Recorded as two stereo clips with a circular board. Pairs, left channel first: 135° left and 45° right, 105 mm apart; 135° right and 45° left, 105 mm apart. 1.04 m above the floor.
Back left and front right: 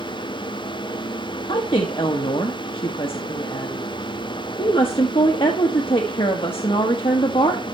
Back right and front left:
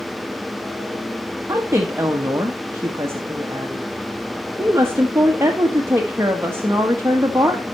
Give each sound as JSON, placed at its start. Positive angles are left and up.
{"t": 1.5, "sound": "a woman speaking", "azimuth_deg": 110, "distance_m": 1.3}